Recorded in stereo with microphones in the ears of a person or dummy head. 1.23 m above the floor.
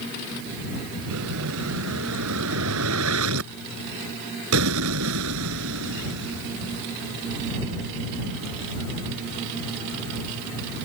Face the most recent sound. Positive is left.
turn(degrees=-75)  # may be behind; listen again after turning